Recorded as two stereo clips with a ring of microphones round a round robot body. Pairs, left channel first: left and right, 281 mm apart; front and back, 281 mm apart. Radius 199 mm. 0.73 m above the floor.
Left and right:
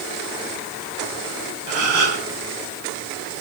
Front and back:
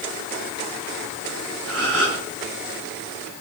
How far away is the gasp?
About 3 m.